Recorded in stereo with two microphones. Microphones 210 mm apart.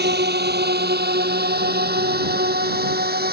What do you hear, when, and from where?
0.0 s a drone: 50° right (ahead or behind)